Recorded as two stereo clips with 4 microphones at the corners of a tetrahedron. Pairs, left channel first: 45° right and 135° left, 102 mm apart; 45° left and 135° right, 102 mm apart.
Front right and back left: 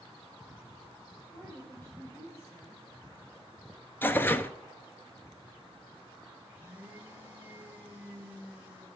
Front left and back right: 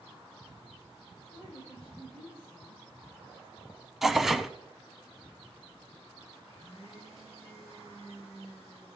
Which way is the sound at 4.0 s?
50° right.